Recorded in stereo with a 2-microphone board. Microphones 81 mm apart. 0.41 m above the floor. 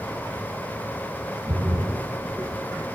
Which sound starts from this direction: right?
A splash, at 1.5 s.